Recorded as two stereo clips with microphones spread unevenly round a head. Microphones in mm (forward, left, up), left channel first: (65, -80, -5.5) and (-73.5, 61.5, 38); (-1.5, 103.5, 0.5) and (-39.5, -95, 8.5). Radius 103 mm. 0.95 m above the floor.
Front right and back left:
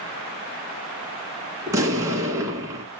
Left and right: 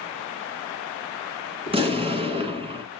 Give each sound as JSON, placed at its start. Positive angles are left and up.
{"t": 1.7, "sound": "an explosion", "azimuth_deg": -160, "distance_m": 1.6}